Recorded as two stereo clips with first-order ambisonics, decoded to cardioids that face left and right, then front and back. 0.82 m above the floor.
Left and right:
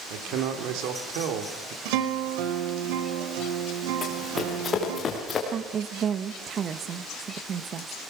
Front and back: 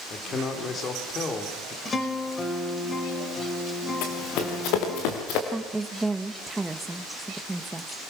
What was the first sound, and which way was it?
A man speaking, 65° right.